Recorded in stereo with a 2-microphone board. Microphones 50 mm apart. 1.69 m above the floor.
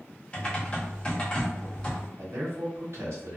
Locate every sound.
0.3 s typing on a keyboard: 20° left (ahead or behind), 0.8 m
2.2 s a man speaking: 65° right (ahead or behind), 1.2 m